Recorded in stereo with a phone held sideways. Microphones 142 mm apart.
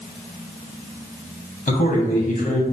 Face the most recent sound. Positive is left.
turn(degrees=65)  # may be behind; listen again after turning